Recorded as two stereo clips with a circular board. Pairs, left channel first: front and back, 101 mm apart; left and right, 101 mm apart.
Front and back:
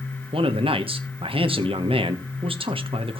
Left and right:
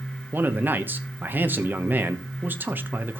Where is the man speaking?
160° right, 1.1 m.